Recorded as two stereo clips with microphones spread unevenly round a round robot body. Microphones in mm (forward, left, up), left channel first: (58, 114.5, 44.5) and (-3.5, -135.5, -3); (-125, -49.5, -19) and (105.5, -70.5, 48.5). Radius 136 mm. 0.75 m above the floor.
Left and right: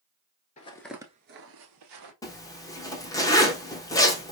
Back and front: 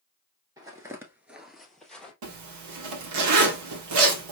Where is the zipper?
5° right, 1.1 m.